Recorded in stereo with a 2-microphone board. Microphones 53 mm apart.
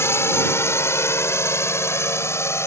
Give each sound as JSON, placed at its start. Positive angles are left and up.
{"t": 0.0, "sound": "a drone", "side_deg": 55}